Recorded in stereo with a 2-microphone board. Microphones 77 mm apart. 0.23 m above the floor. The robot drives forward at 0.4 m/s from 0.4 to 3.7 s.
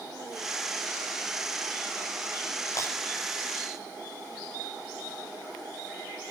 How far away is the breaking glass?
About 9 m.